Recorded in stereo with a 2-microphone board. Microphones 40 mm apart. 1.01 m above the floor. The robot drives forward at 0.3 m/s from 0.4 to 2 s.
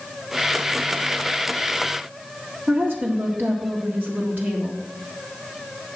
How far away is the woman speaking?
About 1.8 m.